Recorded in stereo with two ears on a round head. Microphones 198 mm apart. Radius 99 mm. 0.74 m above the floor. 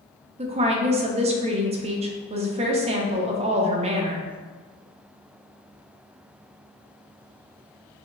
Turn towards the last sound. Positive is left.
turn(degrees=-30)  # may be behind; listen again after turning